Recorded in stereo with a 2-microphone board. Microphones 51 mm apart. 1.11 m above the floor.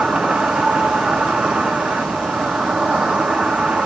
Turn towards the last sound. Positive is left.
turn(degrees=-25)  # may be behind; listen again after turning